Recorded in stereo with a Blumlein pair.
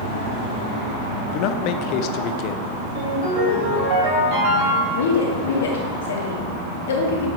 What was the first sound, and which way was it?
A man speaking, 40° left.